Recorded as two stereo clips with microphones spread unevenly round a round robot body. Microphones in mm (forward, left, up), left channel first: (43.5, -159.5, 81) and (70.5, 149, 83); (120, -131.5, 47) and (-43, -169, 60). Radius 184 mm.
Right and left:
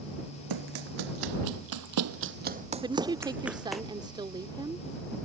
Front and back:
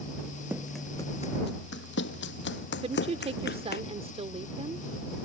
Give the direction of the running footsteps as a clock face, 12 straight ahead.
8 o'clock.